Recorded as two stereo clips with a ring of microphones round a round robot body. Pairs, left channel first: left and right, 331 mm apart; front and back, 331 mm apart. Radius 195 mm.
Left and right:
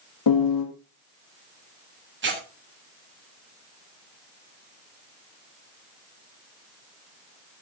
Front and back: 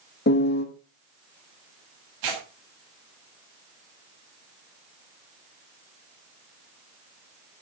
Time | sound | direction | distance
0.3 | a piano | 60° left | 3 m
2.2 | tearing paper | 145° right | 7 m